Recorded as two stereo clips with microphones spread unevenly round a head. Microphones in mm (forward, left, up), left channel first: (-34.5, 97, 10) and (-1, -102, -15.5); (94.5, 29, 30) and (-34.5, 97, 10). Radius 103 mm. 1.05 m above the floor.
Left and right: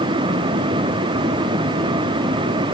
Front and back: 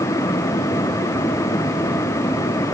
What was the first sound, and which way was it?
Only background noise.